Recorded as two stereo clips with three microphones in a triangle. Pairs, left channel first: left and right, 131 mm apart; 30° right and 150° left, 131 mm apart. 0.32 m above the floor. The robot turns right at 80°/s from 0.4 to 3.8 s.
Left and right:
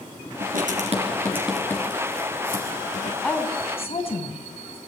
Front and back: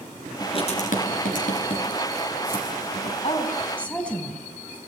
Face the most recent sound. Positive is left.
turn(degrees=50)